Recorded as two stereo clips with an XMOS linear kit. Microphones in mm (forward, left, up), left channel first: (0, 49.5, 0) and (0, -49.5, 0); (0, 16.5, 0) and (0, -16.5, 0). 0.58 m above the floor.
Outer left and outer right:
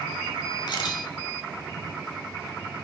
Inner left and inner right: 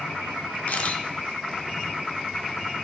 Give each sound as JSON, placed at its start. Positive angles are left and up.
{"t": 0.7, "sound": "a camera shutter", "side_deg": 45, "distance_m": 1.2}